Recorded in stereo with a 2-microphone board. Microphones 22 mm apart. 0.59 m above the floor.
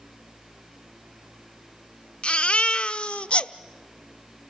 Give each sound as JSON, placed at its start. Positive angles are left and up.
{"t": 2.2, "sound": "a baby crying", "side_deg": 55, "distance_m": 0.6}